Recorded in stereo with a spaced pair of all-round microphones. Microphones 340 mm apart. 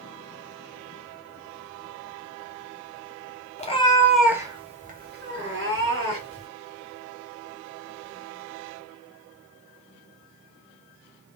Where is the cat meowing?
20° left (ahead or behind), 0.6 m; by 6.5 s 40° right (ahead or behind), 1.3 m.